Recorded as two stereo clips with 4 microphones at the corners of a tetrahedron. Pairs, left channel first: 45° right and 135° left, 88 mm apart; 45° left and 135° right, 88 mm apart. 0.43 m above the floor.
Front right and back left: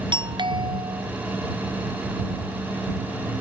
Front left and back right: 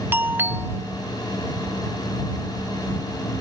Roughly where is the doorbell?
Behind.